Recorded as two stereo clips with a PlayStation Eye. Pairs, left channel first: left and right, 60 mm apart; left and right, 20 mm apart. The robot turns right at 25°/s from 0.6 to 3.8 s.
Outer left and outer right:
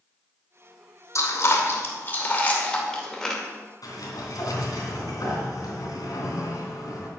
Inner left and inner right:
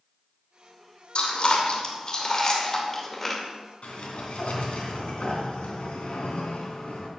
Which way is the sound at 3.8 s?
85° left.